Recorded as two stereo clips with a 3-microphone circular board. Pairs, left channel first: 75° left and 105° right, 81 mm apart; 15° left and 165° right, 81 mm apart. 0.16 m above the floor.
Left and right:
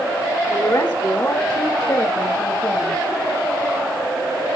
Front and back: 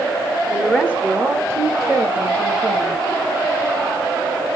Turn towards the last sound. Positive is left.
turn(degrees=145)